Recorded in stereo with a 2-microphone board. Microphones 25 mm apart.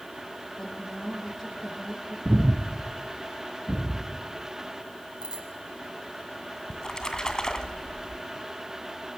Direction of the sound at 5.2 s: 40° right (ahead or behind).